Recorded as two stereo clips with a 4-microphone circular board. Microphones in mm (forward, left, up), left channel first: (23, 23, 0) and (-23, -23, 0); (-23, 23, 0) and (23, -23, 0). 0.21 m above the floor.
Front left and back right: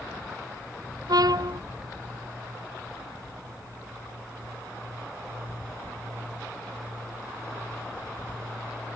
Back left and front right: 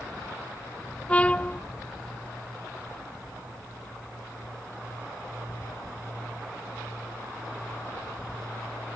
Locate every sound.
1.1 s a trumpet: 155° right